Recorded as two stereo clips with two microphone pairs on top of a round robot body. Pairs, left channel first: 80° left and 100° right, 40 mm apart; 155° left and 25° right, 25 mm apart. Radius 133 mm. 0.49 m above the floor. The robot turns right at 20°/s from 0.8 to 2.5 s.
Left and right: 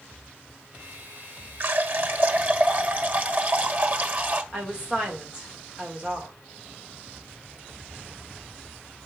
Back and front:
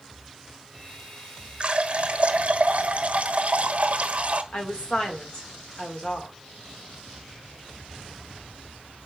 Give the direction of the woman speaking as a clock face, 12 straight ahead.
6 o'clock.